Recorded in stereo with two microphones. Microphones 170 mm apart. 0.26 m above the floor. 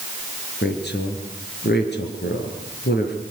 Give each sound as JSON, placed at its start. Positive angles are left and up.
{"t": 0.6, "sound": "a woman speaking", "side_deg": 75, "distance_m": 5.5}